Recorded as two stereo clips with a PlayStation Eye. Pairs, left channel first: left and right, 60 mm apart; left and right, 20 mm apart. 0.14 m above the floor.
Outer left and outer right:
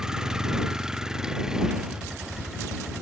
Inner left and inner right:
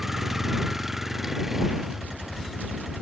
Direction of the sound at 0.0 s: 10° right (ahead or behind).